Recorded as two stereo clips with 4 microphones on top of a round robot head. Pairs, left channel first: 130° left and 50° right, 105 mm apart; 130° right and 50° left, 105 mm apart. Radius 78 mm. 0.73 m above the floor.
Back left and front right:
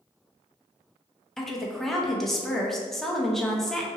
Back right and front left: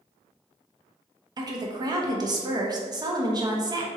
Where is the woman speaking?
45° left, 0.8 m.